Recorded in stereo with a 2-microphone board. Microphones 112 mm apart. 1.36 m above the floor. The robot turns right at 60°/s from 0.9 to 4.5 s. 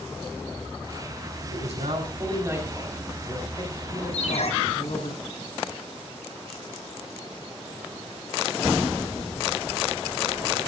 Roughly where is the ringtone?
Left.